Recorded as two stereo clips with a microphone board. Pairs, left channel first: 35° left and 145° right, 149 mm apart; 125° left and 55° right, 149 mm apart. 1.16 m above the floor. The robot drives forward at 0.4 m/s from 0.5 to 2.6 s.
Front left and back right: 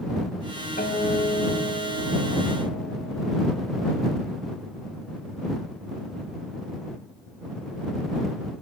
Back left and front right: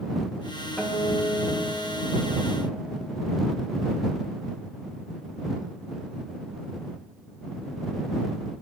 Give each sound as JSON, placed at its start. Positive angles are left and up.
{"t": 0.8, "sound": "a guitar", "azimuth_deg": 45, "distance_m": 7.0}